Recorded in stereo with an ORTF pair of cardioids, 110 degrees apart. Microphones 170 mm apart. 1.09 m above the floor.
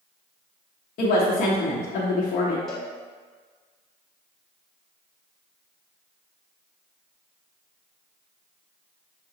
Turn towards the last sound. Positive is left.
turn(degrees=5)